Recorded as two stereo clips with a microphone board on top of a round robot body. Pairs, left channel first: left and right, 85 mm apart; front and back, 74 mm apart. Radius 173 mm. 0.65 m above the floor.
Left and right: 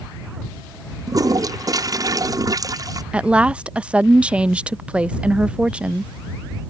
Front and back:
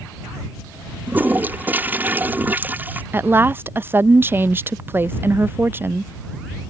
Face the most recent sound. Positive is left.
turn(degrees=-155)